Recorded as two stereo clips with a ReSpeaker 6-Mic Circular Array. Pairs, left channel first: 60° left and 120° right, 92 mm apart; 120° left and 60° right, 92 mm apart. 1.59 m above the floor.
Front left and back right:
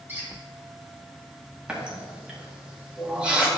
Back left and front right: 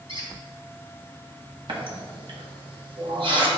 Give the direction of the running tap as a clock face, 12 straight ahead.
1 o'clock.